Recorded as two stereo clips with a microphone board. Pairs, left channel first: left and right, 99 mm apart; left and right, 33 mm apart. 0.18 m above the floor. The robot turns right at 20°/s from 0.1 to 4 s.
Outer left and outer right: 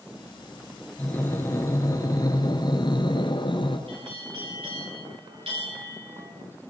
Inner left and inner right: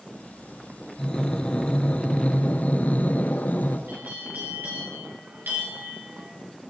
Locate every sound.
1.0 s breathing: 20° left, 3.5 m; by 3.8 s 75° left, 3.5 m
3.9 s a bell: 70° right (ahead or behind), 9.5 m; by 6.3 s 75° right (ahead or behind), 9.5 m